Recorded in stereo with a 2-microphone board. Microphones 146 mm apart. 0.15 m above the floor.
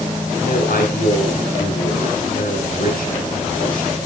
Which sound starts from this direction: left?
A man speaking, at 0.4 s.